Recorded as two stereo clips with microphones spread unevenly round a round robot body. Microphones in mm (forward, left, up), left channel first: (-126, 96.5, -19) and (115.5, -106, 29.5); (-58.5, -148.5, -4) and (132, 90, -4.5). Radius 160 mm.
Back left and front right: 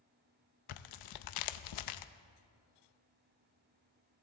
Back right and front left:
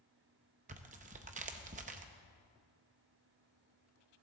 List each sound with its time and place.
0.7 s tearing paper: 120° left, 0.6 m